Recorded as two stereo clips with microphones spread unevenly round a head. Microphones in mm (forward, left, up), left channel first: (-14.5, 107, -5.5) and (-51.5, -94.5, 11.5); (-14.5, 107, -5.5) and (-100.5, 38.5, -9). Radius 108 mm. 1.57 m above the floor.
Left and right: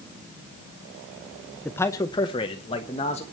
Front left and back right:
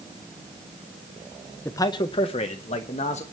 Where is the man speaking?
10° right, 0.5 m; by 3.2 s 15° left, 1.5 m.